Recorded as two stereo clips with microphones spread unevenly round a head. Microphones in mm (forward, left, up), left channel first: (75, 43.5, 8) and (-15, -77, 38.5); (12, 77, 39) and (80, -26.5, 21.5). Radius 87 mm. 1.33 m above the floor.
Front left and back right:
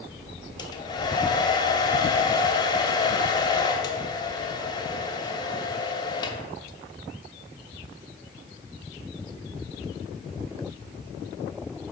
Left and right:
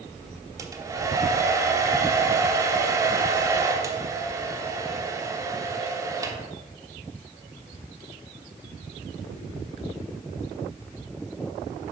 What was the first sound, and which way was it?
A hair dryer, 5° right.